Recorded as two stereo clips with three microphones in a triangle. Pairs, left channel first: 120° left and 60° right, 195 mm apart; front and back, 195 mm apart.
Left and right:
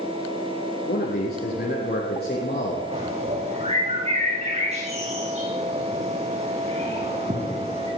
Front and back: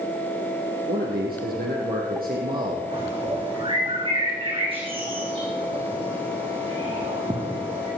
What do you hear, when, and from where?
0.9 s a man speaking: 150° left, 3.5 m
2.9 s a bird: 115° right, 4.5 m